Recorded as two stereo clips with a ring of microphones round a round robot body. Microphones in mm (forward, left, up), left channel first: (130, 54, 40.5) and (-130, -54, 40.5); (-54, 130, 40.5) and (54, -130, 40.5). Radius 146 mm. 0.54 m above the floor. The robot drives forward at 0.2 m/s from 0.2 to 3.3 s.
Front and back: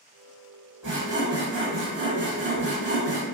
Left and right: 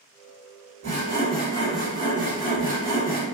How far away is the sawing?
About 1.1 m.